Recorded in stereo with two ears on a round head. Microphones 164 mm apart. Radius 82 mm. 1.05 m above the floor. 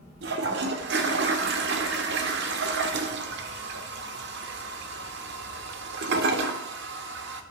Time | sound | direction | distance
0.2 | a toilet flushing | 60° right (ahead or behind) | 1.3 m